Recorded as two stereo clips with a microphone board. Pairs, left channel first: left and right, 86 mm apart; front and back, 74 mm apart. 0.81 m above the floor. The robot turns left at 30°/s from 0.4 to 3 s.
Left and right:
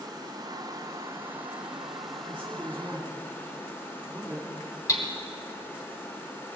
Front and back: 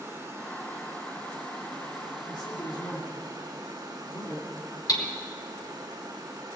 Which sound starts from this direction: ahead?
A man speaking, at 2.3 s.